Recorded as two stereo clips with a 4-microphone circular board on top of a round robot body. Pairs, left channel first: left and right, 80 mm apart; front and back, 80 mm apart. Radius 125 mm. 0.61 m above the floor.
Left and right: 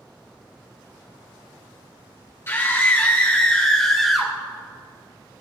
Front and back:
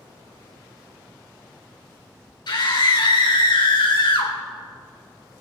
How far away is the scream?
About 4 m.